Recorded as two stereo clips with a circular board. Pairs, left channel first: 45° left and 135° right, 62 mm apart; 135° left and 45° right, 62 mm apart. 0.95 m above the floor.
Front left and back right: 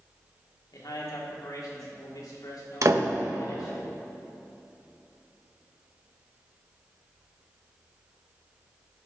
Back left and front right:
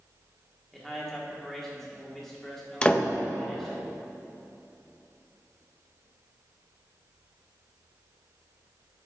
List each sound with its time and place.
0.7 s a man speaking: 50° left, 1.9 m
2.8 s a door slam: 155° right, 0.6 m